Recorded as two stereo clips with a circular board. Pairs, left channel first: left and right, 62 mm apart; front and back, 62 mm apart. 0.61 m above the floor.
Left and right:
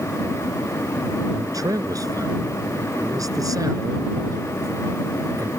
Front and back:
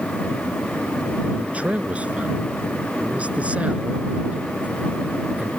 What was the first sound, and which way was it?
A man speaking, 110° right.